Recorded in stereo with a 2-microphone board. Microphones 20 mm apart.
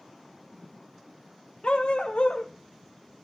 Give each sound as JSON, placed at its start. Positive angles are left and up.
{"t": 1.6, "sound": "a dog barking", "side_deg": 65, "distance_m": 2.0}